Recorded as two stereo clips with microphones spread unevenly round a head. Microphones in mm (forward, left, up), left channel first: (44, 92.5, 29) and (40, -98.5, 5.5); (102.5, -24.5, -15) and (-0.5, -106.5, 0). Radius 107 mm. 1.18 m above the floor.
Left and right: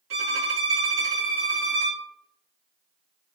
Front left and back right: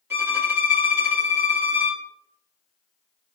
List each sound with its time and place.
0.1 s a violin: 70° right, 1.8 m